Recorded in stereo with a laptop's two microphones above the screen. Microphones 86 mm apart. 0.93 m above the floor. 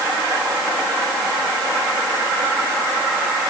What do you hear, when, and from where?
Only background noise.